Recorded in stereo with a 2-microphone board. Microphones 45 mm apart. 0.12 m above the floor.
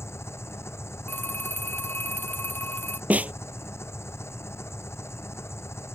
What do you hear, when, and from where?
0.0 s an engine running: 80° left
1.1 s a phone ringing: 50° left (ahead or behind)
3.1 s a snare drum: 35° right (ahead or behind)